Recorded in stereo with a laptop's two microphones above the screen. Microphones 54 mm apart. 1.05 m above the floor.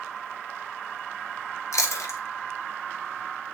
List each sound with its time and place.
1.7 s chewing: 75° left (ahead or behind), 1.5 m